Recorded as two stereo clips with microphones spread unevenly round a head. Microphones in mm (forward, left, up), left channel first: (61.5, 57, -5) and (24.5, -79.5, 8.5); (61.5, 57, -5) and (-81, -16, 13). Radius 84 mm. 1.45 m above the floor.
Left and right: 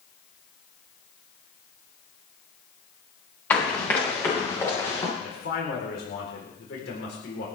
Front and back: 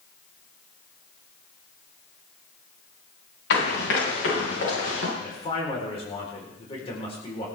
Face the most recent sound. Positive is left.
turn(degrees=85)